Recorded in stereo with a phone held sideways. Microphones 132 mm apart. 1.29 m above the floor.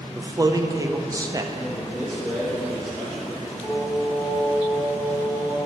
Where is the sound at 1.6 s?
Centre (ahead or behind), 2 m.